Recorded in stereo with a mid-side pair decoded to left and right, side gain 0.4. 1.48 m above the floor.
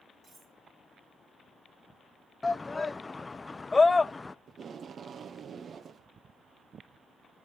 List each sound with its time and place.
0.2 s cutlery clinking: 65° right, 7.5 m
2.4 s a shout: 25° left, 0.5 m
4.5 s tape being pulled: 50° right, 0.7 m